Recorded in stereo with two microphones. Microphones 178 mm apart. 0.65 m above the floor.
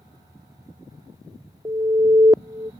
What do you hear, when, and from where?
1.6 s an alarm: 25° right (ahead or behind)